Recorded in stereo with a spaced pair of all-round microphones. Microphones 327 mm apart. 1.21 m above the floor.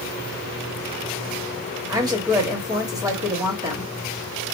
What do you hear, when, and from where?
1.9 s a woman speaking: 10° right (ahead or behind), 1.4 m